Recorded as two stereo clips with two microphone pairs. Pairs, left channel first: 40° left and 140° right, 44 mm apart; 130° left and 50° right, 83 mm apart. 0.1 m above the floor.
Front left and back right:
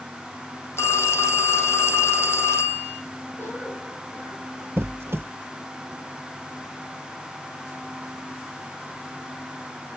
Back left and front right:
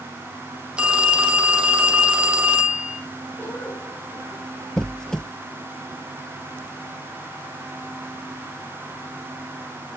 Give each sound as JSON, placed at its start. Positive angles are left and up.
{"t": 0.8, "sound": "a phone ringing", "azimuth_deg": 25, "distance_m": 2.5}
{"t": 3.4, "sound": "a cough", "azimuth_deg": 70, "distance_m": 5.0}
{"t": 4.8, "sound": "a squeak", "azimuth_deg": -150, "distance_m": 0.5}